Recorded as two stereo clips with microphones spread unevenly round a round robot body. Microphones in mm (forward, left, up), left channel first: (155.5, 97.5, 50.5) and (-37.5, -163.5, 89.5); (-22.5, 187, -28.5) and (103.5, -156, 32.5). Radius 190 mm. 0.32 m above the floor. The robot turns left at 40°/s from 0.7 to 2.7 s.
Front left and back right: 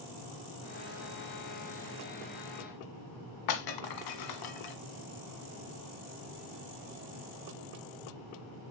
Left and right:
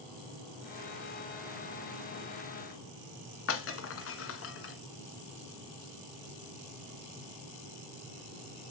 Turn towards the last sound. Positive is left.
turn(degrees=55)